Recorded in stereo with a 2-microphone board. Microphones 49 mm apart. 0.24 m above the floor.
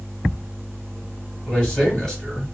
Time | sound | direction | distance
1.5 | a man speaking | 15° left (ahead or behind) | 1.7 m